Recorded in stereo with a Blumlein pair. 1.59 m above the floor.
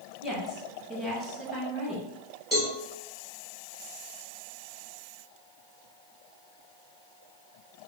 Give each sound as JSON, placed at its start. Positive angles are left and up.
{"t": 0.2, "sound": "a woman speaking", "azimuth_deg": 0, "distance_m": 1.4}
{"t": 2.5, "sound": "a cowbell", "azimuth_deg": 5, "distance_m": 1.8}